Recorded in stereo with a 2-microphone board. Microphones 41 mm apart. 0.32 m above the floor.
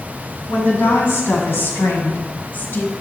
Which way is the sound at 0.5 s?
70° left (ahead or behind).